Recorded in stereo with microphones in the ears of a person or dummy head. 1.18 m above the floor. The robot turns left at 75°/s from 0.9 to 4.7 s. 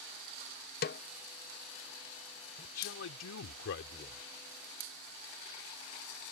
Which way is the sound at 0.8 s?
40° left (ahead or behind).